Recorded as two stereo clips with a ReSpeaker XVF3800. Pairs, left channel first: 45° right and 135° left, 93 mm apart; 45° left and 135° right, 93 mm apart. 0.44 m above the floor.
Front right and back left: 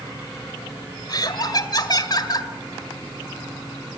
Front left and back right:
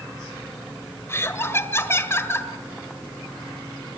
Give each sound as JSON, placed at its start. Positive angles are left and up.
{"t": 1.1, "sound": "laughter", "azimuth_deg": -15, "distance_m": 2.0}